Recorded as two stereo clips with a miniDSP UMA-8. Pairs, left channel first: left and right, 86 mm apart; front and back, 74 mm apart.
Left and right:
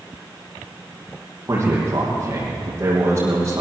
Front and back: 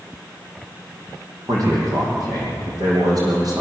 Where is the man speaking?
150° right, 9.5 m.